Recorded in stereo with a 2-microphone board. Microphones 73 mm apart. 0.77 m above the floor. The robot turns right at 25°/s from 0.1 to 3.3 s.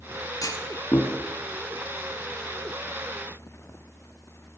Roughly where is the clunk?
Left.